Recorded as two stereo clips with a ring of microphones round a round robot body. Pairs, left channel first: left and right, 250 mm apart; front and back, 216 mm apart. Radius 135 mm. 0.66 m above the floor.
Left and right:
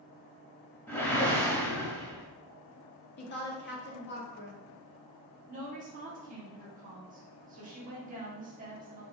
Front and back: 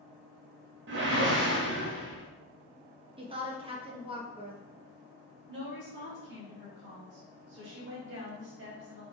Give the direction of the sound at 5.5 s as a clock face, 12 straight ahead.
5 o'clock.